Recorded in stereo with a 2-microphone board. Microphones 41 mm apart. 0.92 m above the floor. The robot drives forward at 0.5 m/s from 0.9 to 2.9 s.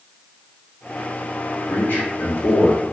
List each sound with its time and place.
1.7 s a man speaking: 55° left (ahead or behind), 2 m; by 2.8 s 70° left (ahead or behind), 1.8 m